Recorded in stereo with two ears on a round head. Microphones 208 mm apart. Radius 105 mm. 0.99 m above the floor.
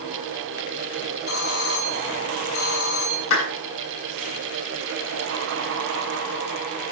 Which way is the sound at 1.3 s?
50° left (ahead or behind).